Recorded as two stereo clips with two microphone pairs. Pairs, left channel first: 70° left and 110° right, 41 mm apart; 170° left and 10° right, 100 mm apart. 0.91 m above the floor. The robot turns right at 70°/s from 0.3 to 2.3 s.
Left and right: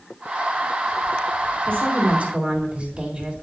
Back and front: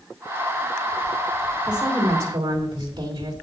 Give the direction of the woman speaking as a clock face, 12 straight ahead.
3 o'clock.